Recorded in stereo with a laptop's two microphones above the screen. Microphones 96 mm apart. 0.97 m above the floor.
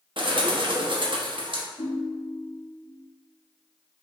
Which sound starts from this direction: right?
A bird, at 0.2 s.